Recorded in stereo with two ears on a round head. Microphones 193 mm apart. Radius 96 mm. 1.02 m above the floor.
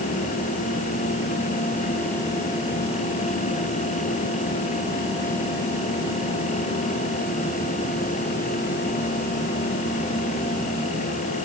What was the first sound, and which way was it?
Only background noise.